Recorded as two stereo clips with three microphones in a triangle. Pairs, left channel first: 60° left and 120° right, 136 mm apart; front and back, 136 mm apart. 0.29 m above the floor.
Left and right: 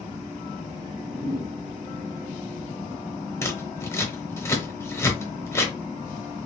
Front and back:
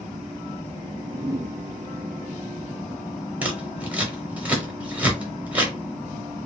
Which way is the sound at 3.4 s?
110° left.